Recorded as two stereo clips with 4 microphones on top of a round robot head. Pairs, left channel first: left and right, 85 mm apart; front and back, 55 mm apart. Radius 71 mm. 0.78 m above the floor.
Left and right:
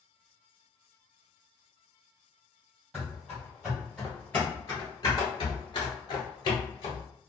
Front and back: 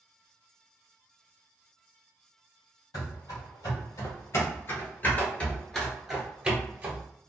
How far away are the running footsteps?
About 1.6 m.